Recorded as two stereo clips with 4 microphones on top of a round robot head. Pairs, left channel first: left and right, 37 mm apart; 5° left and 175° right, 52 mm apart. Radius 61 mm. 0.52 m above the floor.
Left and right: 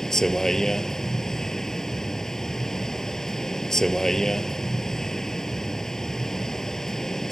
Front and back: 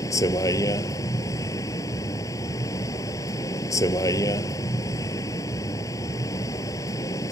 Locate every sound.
0.0 s a vehicle: 10° left